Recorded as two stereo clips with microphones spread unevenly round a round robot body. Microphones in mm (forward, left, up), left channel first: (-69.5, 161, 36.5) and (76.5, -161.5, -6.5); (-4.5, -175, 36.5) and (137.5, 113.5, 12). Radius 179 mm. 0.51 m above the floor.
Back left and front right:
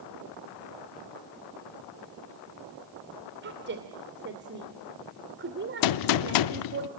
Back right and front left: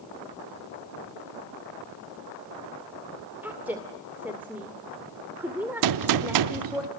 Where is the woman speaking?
15° right, 2.0 m.